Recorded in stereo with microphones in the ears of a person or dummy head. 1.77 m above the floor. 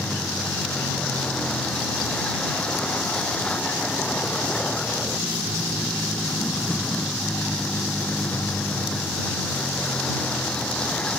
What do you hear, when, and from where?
0.0 s a vehicle: 5° left (ahead or behind)